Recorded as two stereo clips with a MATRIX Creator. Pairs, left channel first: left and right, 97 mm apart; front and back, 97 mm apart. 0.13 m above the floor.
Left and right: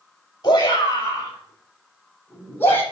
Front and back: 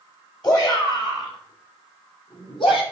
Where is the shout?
45° left, 6 m; by 2.8 s 25° left, 7 m.